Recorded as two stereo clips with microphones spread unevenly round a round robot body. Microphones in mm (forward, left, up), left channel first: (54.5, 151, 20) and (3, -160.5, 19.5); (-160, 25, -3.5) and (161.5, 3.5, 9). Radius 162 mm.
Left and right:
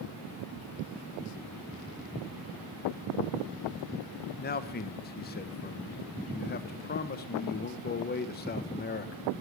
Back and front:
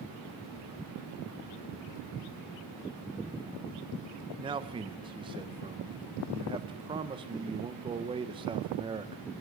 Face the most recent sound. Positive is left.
turn(degrees=60)